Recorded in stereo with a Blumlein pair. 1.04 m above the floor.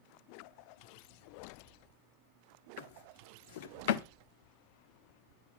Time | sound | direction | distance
2.8 | a drawer | 55° left | 1.0 m